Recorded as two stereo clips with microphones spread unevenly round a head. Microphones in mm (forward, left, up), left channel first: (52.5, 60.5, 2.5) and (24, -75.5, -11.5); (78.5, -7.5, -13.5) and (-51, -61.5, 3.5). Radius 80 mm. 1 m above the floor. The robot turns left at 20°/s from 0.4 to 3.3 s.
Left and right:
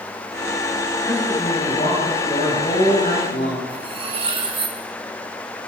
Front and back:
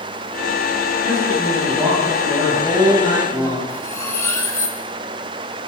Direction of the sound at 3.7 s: 50° right.